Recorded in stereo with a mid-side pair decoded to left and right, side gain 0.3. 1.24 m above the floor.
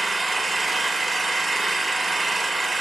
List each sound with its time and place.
0.0 s an engine running: 45° right, 1.4 m